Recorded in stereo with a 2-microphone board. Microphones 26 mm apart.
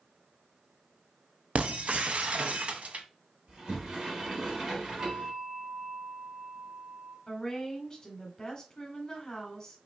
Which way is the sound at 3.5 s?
35° right (ahead or behind).